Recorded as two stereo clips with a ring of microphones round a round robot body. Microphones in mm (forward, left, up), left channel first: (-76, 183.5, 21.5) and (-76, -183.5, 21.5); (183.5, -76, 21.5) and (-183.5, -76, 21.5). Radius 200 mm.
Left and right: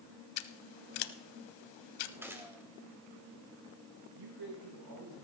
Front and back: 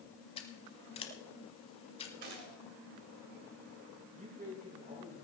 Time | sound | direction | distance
0.4 | scissors | 75° left | 0.8 m
2.2 | a gunshot | 175° right | 2.5 m
4.2 | a man speaking | 110° right | 6 m